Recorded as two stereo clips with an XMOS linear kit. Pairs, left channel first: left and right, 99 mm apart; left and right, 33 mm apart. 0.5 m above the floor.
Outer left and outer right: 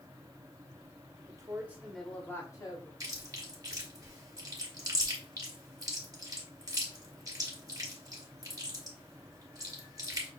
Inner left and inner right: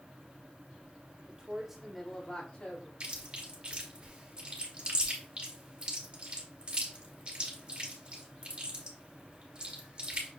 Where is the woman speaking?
35° right (ahead or behind), 1.3 m; by 2.9 s 45° left (ahead or behind), 1.4 m.